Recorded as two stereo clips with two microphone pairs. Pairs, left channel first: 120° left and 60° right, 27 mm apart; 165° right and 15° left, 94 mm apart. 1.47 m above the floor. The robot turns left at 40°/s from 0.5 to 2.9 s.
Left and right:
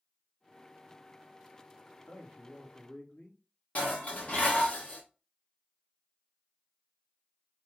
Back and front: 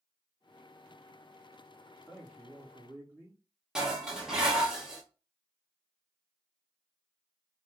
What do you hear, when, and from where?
2.1 s a man speaking: 115° left, 1.5 m; by 3.4 s 85° left, 1.5 m
3.8 s dishes clattering: 100° left, 0.9 m